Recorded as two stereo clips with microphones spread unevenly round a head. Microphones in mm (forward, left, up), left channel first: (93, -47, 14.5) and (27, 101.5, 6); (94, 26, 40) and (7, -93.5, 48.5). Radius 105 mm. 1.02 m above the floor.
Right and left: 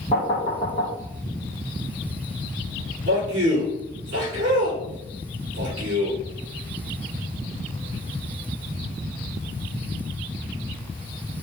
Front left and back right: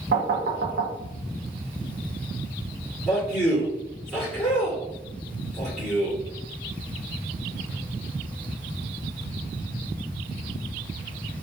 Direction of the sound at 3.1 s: 145° left.